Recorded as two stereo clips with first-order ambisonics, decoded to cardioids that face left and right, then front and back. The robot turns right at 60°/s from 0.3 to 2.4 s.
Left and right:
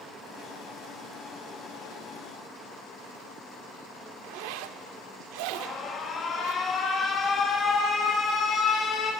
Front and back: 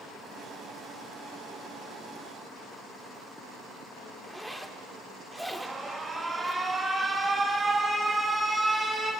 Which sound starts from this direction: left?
An alarm, at 5.5 s.